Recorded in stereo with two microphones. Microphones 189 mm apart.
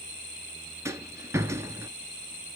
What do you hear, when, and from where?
0.8 s a rattle: 15° right (ahead or behind), 0.6 m